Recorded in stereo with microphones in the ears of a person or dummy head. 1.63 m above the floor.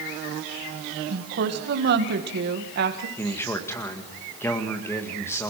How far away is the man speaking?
About 1.9 m.